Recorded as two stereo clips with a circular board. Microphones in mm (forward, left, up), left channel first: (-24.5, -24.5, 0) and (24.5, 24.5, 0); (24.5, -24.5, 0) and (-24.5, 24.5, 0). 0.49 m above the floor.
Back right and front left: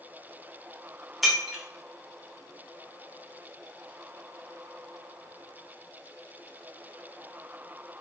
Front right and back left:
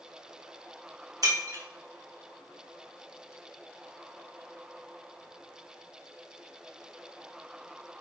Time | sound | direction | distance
1.2 | breaking glass | 135° left | 0.8 m